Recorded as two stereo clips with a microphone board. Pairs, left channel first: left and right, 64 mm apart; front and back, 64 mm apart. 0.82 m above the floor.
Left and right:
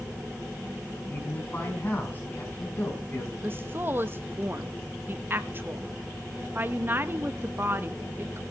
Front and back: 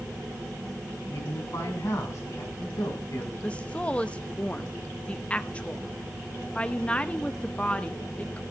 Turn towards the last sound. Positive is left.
turn(degrees=-60)